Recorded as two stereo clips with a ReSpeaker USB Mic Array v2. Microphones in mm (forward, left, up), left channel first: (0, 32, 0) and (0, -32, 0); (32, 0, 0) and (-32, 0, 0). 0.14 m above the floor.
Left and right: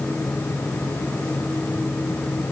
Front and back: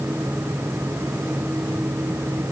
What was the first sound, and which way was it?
Only background noise.